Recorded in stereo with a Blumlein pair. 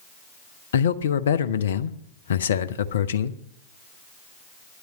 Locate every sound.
0.7 s a man speaking: 65° left, 0.7 m